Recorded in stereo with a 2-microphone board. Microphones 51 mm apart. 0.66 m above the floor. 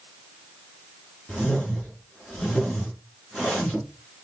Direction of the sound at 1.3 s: 10° left (ahead or behind).